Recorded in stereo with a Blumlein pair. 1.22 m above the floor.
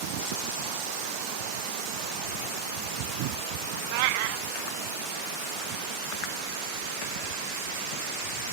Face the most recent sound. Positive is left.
turn(degrees=-45)